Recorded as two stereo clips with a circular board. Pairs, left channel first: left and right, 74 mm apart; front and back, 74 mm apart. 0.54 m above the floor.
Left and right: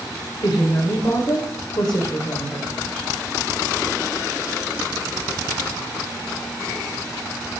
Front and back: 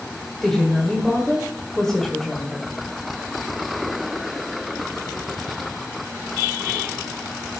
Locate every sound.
0.4 s a woman speaking: 85° left, 1.6 m